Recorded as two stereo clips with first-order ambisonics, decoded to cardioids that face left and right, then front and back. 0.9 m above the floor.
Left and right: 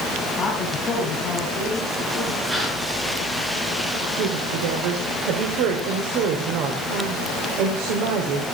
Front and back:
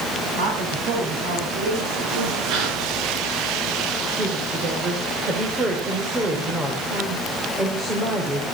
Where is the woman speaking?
110° right, 3.5 m.